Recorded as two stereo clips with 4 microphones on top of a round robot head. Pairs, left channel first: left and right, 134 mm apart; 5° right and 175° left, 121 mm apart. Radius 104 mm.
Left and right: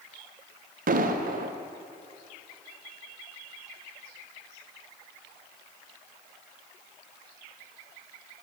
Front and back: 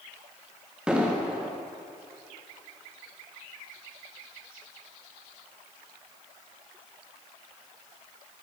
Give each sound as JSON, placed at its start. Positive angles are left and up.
{"t": 0.9, "sound": "an explosion", "azimuth_deg": -100, "distance_m": 0.6}